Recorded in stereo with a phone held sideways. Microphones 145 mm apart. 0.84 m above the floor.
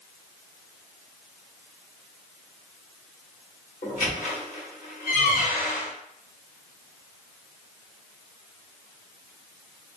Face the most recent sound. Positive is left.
turn(degrees=70)  # may be behind; listen again after turning